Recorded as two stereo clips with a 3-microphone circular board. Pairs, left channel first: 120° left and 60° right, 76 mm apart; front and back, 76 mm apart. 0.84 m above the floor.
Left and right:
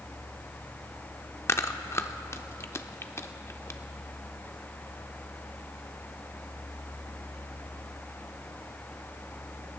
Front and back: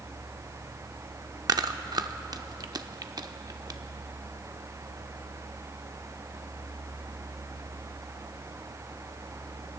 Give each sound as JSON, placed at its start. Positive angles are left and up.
{"t": 1.5, "sound": "chewing", "azimuth_deg": 170, "distance_m": 0.6}